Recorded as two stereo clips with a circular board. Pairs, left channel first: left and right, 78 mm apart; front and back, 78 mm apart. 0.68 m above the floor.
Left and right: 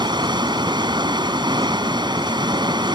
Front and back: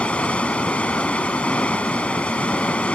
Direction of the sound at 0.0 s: 75° right.